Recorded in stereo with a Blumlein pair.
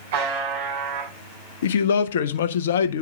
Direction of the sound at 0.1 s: 60° right.